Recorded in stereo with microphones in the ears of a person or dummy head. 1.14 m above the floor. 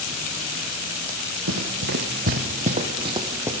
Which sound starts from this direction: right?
Running footsteps, at 1.5 s.